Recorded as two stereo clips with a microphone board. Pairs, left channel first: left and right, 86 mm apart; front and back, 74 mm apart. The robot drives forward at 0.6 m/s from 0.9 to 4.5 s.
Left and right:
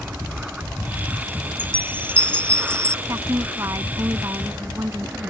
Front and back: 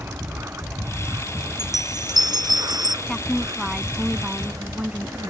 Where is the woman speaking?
75° right; by 5.3 s 125° right.